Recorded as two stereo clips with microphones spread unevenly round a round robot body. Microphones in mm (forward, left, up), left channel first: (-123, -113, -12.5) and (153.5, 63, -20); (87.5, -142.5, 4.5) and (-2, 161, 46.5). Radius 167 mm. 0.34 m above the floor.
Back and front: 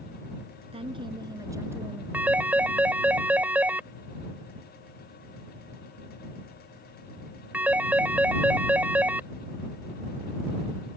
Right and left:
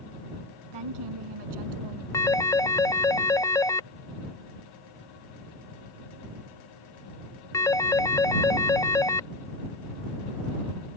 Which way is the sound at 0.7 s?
105° left.